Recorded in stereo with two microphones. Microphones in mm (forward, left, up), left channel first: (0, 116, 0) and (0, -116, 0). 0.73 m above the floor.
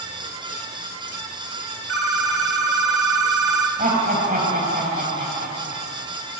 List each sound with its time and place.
1.9 s a phone ringing: 75° left (ahead or behind), 1.5 m
3.8 s laughter: 35° right (ahead or behind), 4.5 m